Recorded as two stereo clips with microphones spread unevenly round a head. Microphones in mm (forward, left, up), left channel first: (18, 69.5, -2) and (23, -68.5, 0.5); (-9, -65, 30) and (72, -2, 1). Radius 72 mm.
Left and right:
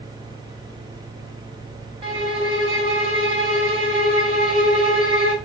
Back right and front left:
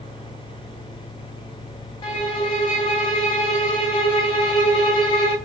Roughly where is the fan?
Behind right.